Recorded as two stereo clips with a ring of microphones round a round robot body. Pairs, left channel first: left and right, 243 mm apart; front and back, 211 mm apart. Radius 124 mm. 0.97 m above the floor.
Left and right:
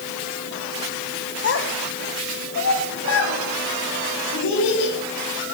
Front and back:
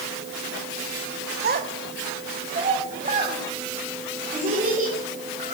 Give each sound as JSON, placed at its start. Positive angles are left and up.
{"t": 1.4, "sound": "a child speaking", "azimuth_deg": 135, "distance_m": 1.2}